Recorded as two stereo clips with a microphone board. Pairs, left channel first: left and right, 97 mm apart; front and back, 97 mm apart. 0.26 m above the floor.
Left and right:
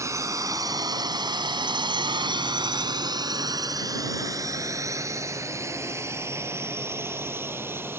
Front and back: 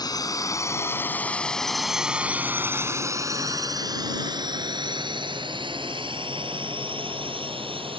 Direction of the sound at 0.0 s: 35° right.